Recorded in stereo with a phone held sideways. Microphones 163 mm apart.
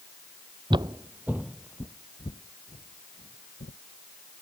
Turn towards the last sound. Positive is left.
turn(degrees=60)  # may be behind; listen again after turning